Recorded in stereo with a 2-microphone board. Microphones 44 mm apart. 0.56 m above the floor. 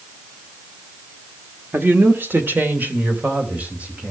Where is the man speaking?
50° right (ahead or behind), 1.7 m; by 4.1 s 30° right (ahead or behind), 4 m.